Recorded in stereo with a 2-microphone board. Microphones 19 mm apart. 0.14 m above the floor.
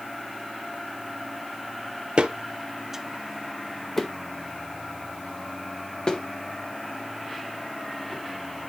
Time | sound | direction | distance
2.2 | footsteps | 65° right (ahead or behind) | 0.6 m